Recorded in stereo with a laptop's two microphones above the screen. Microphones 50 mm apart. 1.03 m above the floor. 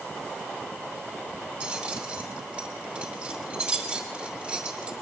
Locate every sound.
1.6 s keys jangling: 25° right (ahead or behind), 2.5 m